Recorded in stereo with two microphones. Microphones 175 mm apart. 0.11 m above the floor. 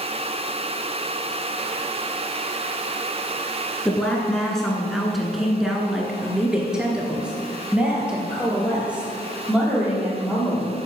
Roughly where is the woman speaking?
Centre.